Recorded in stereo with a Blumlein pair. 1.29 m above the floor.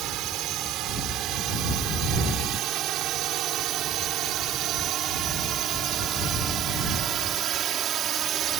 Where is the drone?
35° right; by 8.6 s 25° right.